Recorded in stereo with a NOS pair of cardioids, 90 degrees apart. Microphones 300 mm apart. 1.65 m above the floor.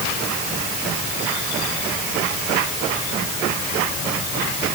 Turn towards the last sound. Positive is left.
No sound to turn to.